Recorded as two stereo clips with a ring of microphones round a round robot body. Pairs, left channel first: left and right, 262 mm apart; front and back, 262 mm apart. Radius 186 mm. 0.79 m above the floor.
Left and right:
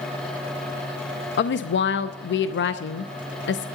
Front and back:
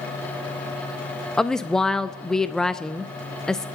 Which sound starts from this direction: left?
A woman speaking, at 1.4 s.